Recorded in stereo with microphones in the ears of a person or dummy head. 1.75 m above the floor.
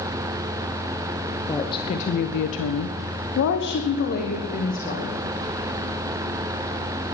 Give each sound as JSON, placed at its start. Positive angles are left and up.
{"t": 1.5, "sound": "a woman speaking", "side_deg": 20, "distance_m": 1.3}